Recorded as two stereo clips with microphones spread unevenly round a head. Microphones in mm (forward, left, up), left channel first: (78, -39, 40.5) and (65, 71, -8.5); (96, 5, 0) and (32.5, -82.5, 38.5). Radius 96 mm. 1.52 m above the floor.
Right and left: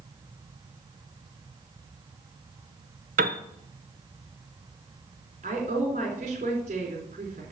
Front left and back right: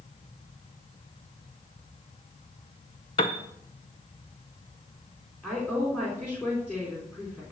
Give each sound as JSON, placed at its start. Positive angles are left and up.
{"t": 3.2, "sound": "a piano", "azimuth_deg": 120, "distance_m": 0.6}
{"t": 5.4, "sound": "a woman speaking", "azimuth_deg": 155, "distance_m": 3.5}